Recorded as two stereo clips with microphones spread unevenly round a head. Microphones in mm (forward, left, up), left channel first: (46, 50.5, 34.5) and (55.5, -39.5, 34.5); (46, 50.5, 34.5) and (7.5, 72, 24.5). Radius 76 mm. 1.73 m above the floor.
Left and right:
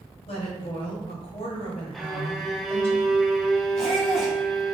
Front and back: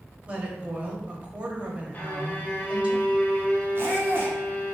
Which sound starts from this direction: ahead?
A violin, at 1.9 s.